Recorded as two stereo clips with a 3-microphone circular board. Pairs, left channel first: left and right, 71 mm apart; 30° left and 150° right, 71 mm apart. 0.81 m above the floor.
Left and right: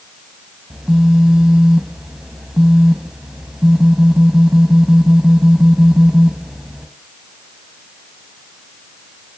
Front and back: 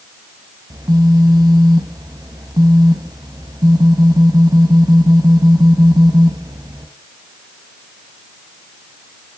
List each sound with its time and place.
0.7 s a phone buzzing: 170° right, 3 m